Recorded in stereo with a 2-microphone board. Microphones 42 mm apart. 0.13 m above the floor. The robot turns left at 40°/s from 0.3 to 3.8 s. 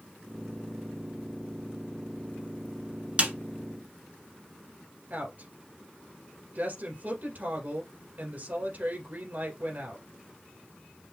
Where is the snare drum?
35° right (ahead or behind), 1.2 m.